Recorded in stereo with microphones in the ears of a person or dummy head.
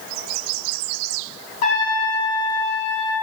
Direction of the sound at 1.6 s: 45° left (ahead or behind).